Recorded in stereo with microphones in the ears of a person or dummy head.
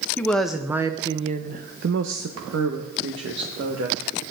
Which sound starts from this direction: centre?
A woman speaking, at 0.2 s.